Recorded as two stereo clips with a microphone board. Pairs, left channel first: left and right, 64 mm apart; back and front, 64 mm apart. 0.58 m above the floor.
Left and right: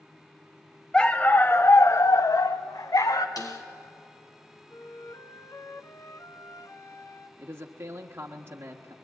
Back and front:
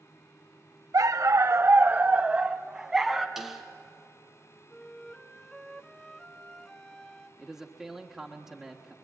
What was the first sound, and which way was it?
A dog barking, 10° left.